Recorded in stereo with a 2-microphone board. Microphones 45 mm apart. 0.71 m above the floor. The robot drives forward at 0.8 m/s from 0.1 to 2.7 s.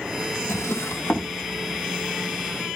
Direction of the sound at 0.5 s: 80° left.